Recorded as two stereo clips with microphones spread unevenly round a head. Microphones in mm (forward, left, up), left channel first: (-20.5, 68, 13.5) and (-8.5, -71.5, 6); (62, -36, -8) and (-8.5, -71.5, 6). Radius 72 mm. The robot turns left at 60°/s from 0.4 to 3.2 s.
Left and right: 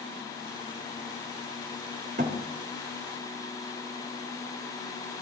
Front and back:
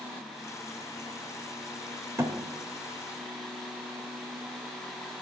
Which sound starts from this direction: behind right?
A thud, at 2.2 s.